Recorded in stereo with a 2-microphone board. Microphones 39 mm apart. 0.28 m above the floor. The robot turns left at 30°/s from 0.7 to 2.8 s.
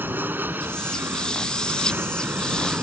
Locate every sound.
0.0 s an aircraft: 75° right; by 2.8 s 135° right